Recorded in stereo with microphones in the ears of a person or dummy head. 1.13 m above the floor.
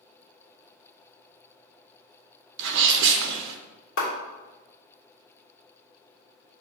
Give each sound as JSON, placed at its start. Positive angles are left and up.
{"t": 2.6, "sound": "a sneeze", "side_deg": -60, "distance_m": 0.9}
{"t": 4.0, "sound": "a clap", "side_deg": 75, "distance_m": 3.0}